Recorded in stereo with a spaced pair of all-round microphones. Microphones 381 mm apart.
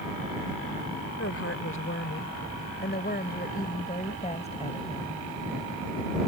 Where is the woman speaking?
40° left (ahead or behind); by 5.3 s 15° left (ahead or behind).